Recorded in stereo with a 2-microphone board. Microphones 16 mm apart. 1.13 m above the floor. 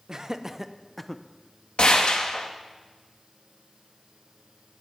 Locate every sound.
0.1 s laughter: 40° right (ahead or behind), 1.1 m; by 1.2 s 15° left (ahead or behind), 0.7 m
1.8 s a gunshot: 70° left (ahead or behind), 1.5 m